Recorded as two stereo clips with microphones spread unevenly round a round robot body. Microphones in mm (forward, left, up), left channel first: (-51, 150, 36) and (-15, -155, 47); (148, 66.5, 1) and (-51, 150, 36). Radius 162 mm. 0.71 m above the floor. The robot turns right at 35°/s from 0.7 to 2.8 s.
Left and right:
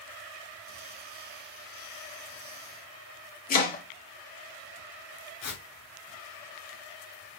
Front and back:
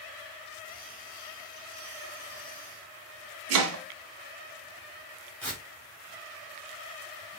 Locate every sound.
3.5 s chopping: 160° left, 1.2 m
5.4 s tearing paper: 55° left, 3 m